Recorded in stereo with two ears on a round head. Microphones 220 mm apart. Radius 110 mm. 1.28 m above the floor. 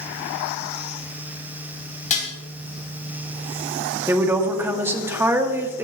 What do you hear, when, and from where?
2.1 s dishes clattering: 30° left (ahead or behind), 5 m
4.1 s a woman speaking: 10° right (ahead or behind), 2.0 m